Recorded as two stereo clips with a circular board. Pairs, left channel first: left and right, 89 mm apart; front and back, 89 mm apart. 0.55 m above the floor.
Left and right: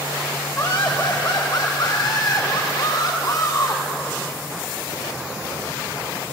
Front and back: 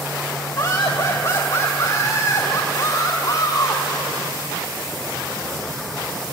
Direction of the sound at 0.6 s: 35° left.